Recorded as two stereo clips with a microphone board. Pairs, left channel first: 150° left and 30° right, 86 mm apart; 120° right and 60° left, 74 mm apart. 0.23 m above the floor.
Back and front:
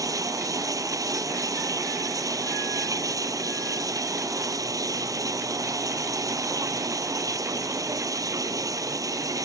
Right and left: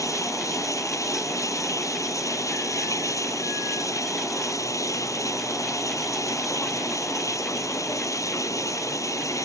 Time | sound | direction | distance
0.0 | running water | 75° right | ?